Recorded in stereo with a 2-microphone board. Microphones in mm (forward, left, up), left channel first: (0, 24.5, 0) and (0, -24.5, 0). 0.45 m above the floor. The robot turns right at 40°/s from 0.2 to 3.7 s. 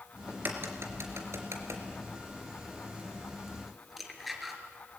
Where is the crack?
45° right (ahead or behind), 3 m; by 4.6 s centre (ahead or behind), 3 m.